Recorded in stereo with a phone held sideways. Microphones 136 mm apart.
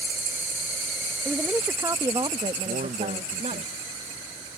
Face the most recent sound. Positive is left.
turn(degrees=-80)